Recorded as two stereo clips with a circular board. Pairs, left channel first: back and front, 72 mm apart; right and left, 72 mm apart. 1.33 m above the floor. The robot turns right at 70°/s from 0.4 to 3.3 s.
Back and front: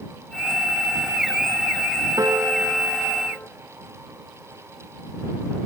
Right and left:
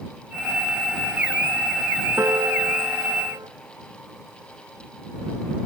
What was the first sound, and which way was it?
A piano, 35° left.